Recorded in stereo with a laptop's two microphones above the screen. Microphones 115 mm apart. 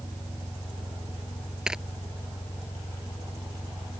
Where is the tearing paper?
5° right (ahead or behind).